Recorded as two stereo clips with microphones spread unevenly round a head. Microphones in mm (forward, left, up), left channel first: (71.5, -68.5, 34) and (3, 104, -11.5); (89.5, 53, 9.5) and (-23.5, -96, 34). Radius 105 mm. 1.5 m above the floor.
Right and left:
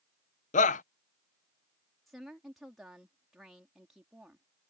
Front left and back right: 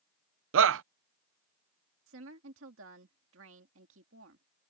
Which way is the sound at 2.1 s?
160° right.